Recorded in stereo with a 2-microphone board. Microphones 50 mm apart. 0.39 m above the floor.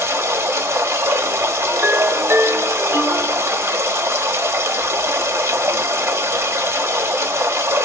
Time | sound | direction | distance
0.0 | running water | 65° right (ahead or behind) | 0.9 m
1.7 | a ringtone | 45° right (ahead or behind) | 1.2 m